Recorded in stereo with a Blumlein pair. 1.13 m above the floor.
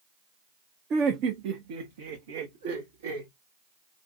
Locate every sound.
0.9 s laughter: 25° right, 0.7 m; by 3.3 s 70° right, 1.7 m